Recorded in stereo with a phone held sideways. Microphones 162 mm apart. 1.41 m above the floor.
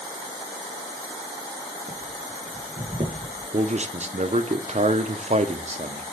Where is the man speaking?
45° right (ahead or behind), 0.9 m.